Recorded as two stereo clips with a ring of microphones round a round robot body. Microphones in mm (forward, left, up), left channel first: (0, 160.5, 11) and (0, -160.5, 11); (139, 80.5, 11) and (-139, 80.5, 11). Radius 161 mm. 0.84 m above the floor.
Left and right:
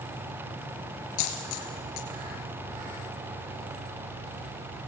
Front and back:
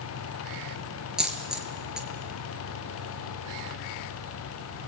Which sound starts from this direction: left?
A dropped coin, at 1.2 s.